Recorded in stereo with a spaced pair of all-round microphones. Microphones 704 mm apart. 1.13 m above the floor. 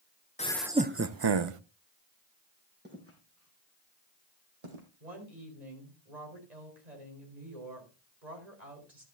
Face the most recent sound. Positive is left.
turn(degrees=-75)  # may be behind; listen again after turning